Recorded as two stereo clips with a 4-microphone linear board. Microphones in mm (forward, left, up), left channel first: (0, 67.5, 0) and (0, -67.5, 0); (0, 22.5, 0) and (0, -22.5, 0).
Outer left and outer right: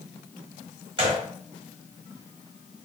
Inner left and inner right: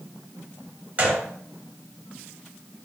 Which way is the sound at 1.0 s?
40° right (ahead or behind).